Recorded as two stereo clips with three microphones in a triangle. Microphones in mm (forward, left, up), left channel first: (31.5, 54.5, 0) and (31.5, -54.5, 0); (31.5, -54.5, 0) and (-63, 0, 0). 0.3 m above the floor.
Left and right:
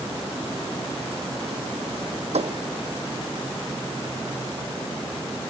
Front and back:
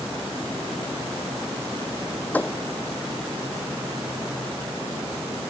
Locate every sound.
2.3 s a thud: 105° right